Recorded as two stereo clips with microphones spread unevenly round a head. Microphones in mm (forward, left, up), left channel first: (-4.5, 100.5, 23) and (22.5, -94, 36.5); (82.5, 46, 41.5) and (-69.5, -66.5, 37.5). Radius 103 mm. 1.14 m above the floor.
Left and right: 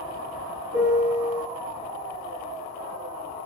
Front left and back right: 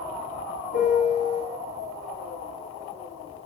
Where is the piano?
5° right, 1.9 m.